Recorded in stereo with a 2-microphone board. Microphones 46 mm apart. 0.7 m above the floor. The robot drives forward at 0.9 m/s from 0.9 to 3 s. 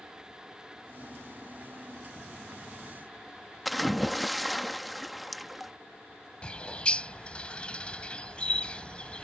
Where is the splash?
Centre (ahead or behind).